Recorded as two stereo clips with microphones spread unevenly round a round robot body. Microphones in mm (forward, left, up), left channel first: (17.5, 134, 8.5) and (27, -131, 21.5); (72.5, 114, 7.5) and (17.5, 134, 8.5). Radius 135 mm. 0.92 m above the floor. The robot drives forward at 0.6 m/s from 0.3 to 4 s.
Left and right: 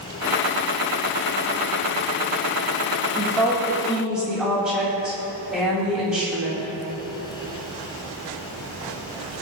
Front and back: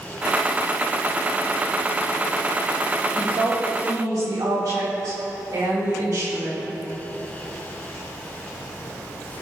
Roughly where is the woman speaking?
Behind.